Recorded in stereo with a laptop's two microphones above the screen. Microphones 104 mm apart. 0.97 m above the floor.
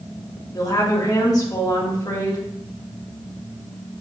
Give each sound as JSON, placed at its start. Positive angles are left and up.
{"t": 0.5, "sound": "a woman speaking", "side_deg": 35, "distance_m": 1.5}